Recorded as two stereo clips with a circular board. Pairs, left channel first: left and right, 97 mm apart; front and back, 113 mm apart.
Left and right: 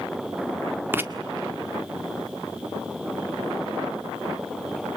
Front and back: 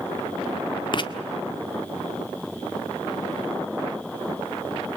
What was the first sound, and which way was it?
Writing, 30° right.